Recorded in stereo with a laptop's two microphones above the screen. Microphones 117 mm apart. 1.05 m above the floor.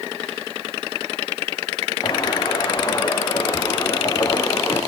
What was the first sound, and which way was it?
Footsteps, 40° left (ahead or behind).